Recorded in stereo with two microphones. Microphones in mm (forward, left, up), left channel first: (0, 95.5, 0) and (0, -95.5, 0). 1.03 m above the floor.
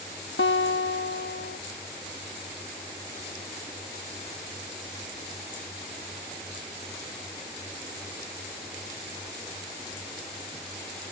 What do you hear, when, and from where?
0.4 s a guitar: 90° left